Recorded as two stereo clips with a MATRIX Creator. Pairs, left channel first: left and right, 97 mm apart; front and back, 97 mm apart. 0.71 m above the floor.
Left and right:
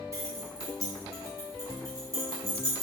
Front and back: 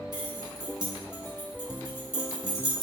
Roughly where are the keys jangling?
Behind right.